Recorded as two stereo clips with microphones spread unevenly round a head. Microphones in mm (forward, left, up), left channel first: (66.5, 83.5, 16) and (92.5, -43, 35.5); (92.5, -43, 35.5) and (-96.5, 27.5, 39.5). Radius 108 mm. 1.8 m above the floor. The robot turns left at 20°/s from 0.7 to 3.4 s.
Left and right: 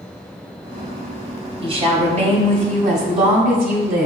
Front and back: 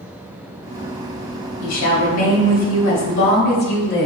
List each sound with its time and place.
1.6 s a woman speaking: 30° right, 1.2 m; by 4.1 s 65° right, 1.2 m